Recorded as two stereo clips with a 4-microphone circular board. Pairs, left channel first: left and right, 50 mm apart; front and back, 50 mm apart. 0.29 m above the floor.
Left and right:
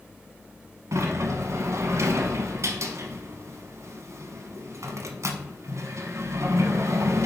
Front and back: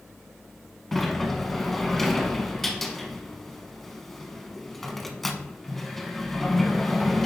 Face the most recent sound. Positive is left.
turn(degrees=-85)